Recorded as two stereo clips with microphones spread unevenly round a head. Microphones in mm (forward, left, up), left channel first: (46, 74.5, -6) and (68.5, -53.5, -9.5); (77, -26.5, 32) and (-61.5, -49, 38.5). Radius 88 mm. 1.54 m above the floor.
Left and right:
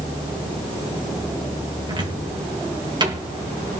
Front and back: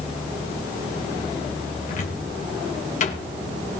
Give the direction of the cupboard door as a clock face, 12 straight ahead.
1 o'clock.